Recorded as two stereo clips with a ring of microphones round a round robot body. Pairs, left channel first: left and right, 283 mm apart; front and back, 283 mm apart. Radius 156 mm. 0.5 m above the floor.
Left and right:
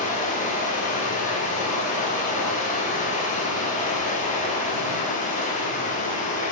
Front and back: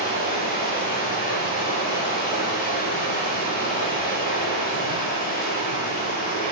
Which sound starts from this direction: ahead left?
Running water, at 0.0 s.